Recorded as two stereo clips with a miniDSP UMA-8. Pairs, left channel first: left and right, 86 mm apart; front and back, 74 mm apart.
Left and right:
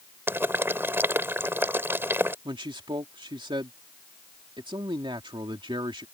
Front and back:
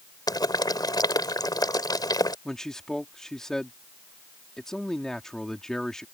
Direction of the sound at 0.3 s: 25° right.